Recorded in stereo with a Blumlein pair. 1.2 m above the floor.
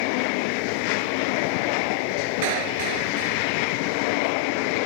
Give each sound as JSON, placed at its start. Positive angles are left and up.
{"t": 2.4, "sound": "a clap", "azimuth_deg": -45}